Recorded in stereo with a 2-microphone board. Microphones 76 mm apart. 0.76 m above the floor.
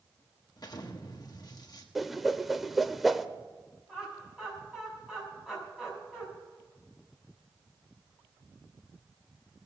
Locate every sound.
0.6 s an explosion: 55° left (ahead or behind), 1.2 m
1.9 s a whoosh: centre (ahead or behind), 0.5 m
3.9 s laughter: 10° right (ahead or behind), 6 m